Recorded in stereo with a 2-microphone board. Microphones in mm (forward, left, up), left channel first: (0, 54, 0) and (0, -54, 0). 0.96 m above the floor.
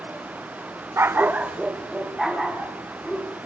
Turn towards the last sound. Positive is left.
turn(degrees=0)  # may be behind; listen again after turning